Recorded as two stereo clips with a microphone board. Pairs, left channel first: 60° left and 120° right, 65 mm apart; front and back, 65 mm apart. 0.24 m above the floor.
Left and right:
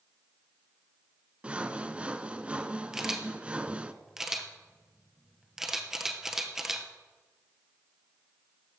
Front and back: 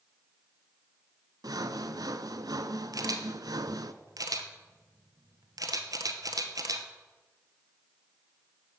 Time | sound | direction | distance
1.4 | sawing | 165° left | 0.6 m
2.9 | a camera shutter | 155° left | 1.1 m